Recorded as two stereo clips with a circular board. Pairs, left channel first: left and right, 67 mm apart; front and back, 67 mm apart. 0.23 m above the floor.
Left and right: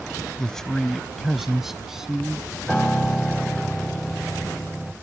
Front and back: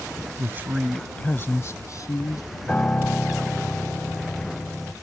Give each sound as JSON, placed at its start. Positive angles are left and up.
{"t": 0.4, "sound": "a man speaking", "azimuth_deg": 165}
{"t": 2.7, "sound": "a piano", "azimuth_deg": 20}